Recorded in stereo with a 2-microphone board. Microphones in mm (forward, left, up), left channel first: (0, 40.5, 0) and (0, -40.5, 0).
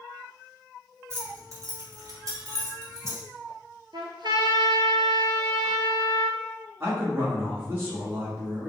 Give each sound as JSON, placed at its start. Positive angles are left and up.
{"t": 1.1, "sound": "keys jangling", "side_deg": -35, "distance_m": 1.4}
{"t": 3.9, "sound": "a trumpet", "side_deg": -70, "distance_m": 0.7}
{"t": 6.8, "sound": "a man speaking", "side_deg": -25, "distance_m": 1.7}